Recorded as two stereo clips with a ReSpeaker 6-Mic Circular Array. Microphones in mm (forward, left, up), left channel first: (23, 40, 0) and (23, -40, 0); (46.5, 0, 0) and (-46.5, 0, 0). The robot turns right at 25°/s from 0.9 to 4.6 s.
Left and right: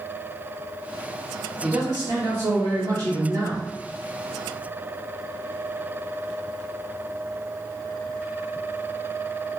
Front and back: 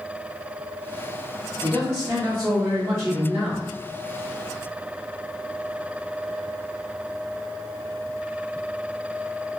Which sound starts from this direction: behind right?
A man speaking, at 1.6 s.